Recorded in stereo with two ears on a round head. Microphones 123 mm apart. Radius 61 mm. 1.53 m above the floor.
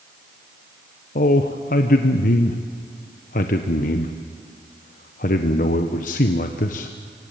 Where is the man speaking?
65° left (ahead or behind), 1.1 m.